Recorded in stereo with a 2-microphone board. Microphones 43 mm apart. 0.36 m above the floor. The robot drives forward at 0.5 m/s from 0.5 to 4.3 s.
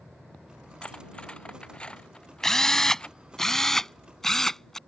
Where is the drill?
10° left (ahead or behind); by 4.8 s 5° left (ahead or behind).